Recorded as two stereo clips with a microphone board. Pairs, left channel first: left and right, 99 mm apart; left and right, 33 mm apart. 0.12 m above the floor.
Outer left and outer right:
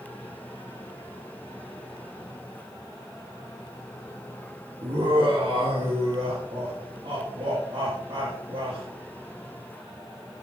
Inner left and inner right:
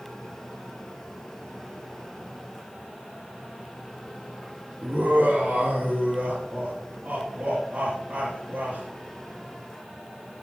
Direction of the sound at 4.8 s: 50° right (ahead or behind).